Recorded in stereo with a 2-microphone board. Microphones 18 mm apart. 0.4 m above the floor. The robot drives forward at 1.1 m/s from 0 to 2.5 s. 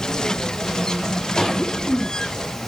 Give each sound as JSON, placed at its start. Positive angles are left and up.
{"t": 1.4, "sound": "a cough", "side_deg": 5, "distance_m": 3.0}